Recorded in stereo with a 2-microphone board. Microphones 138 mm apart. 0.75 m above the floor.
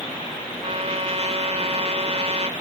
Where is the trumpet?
50° right (ahead or behind).